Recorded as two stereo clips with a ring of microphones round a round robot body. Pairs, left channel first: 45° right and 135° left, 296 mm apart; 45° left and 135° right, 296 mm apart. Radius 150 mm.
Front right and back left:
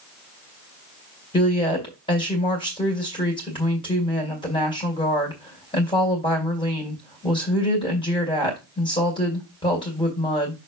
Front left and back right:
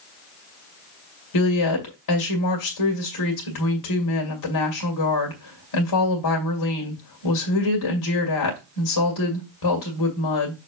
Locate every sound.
1.3 s a woman speaking: 30° left, 2 m